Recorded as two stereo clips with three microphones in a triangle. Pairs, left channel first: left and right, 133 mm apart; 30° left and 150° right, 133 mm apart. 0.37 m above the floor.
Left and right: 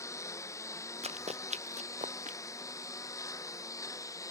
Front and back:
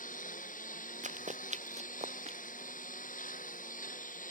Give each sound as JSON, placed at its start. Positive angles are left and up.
{"t": 0.0, "sound": "a lawn mower", "azimuth_deg": 25}
{"t": 1.0, "sound": "running footsteps", "azimuth_deg": -125}